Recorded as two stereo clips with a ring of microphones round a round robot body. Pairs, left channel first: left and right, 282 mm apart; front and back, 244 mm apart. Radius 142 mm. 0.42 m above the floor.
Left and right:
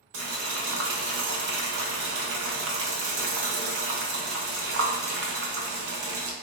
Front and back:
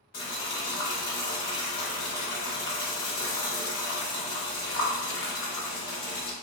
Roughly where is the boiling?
Ahead right.